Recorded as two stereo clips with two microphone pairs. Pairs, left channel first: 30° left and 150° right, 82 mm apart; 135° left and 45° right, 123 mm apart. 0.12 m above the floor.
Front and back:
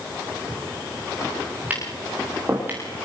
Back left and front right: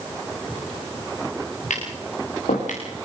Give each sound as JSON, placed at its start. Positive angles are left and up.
{"t": 1.7, "sound": "tapping", "azimuth_deg": 140, "distance_m": 10.0}